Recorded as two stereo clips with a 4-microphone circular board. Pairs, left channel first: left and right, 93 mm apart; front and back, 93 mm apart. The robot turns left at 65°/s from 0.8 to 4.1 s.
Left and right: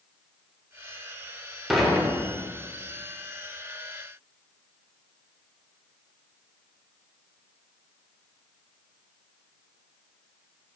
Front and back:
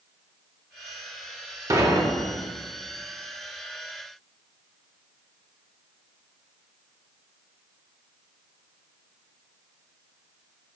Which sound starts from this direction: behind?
Dishes clattering, at 1.7 s.